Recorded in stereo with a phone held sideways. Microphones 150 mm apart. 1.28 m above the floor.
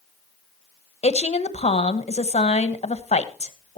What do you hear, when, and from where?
1.0 s a woman speaking: 45° left (ahead or behind), 1.3 m